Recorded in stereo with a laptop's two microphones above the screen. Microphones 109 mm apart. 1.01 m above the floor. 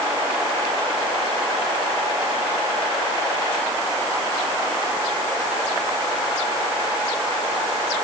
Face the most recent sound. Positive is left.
No sound to turn to.